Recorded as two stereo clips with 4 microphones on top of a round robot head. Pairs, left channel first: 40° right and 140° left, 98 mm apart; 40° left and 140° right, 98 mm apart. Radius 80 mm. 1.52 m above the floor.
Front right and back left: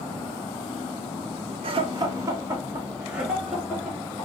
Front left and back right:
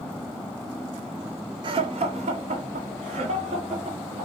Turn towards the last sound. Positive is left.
turn(degrees=-130)